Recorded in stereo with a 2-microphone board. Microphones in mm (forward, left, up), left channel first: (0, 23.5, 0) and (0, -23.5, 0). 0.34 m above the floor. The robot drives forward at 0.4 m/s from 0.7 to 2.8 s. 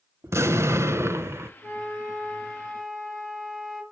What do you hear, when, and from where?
0.2 s an explosion: 80° right, 1.1 m; by 1.5 s 65° right (ahead or behind), 1.1 m
1.6 s a flute: centre (ahead or behind), 6.5 m